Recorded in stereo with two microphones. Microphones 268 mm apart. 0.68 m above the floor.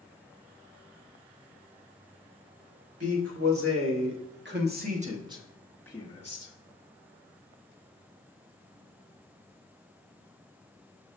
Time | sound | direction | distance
3.0 | a man speaking | 60° right (ahead or behind) | 1.9 m